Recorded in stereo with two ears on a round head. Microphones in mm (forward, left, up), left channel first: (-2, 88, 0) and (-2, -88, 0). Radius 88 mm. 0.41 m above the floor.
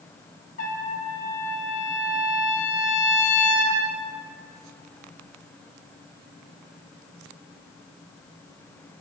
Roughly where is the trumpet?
Left.